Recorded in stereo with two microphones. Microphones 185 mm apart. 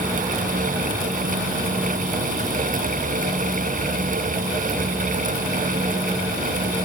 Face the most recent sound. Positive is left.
No sound to turn to.